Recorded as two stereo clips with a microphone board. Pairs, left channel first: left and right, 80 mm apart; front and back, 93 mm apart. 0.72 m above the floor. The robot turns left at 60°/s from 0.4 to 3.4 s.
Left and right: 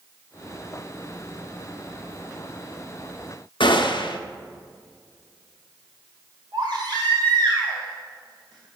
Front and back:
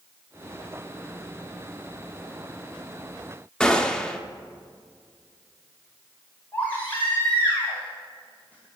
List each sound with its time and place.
3.6 s a gunshot: 80° left, 0.6 m
6.5 s a baby crying: 70° right, 2.5 m